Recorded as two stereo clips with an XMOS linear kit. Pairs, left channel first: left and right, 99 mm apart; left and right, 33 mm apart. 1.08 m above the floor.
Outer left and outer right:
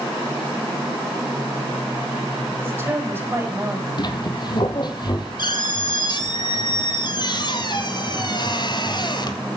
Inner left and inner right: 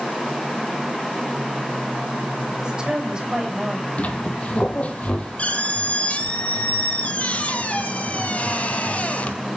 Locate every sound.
2.6 s a woman speaking: 20° right (ahead or behind), 7 m
4.0 s a squeak: 45° left (ahead or behind), 1.6 m